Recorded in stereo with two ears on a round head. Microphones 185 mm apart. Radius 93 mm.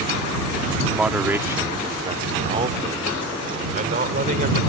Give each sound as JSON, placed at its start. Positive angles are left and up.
{"t": 0.9, "sound": "a man speaking", "side_deg": -5}